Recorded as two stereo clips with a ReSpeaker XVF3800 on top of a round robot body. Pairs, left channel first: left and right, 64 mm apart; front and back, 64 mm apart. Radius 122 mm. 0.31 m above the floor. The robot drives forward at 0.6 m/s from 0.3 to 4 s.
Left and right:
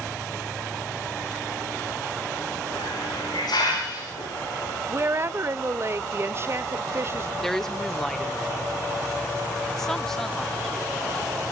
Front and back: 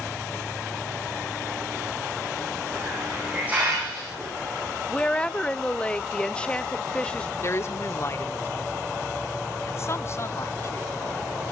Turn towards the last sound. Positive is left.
turn(degrees=10)